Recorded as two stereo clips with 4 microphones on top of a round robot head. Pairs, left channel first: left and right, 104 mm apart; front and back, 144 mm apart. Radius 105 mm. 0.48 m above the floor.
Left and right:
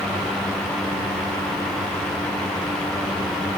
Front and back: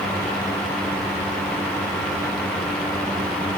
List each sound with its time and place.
Only background noise.